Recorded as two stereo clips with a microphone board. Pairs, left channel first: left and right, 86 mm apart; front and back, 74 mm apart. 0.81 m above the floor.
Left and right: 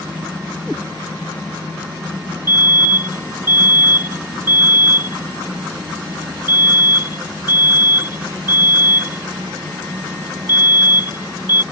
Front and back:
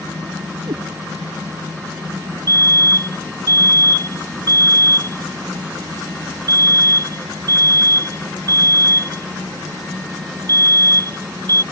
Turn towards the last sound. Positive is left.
turn(degrees=-150)